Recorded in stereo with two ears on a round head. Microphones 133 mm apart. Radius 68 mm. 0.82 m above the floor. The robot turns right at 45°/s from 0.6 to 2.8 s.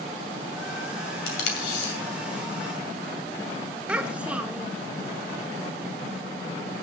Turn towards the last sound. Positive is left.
turn(degrees=-10)  # may be behind; listen again after turning